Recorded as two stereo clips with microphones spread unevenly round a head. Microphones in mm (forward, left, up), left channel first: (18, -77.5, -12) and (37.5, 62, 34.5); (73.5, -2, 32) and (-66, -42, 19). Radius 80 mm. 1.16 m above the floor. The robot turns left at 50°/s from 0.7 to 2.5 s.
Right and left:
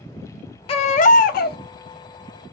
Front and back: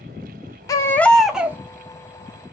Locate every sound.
0.7 s a baby crying: 45° right, 0.5 m; by 1.6 s 90° right, 0.5 m